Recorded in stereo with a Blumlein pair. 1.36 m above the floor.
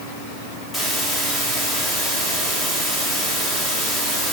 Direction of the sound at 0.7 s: 15° left.